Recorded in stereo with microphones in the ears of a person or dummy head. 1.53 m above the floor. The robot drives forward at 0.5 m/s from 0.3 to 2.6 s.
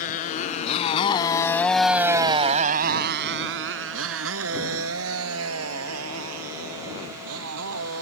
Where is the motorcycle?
40° left (ahead or behind); by 8.0 s 85° right.